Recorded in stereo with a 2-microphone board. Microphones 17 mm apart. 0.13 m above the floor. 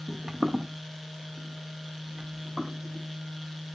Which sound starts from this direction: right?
Footsteps, at 0.1 s.